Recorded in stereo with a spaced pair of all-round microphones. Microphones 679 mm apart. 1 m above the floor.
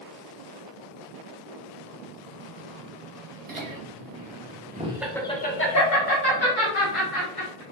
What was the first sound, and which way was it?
Laughter, 45° right (ahead or behind).